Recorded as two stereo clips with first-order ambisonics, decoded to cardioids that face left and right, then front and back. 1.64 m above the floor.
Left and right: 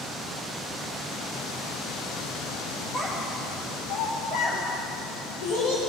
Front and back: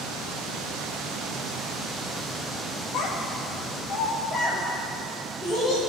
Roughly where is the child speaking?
Ahead.